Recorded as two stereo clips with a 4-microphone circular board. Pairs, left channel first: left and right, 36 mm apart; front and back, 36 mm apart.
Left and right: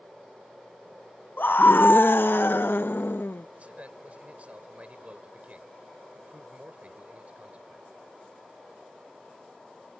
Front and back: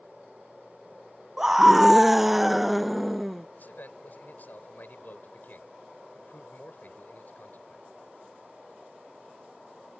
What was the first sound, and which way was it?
A scream, 100° left.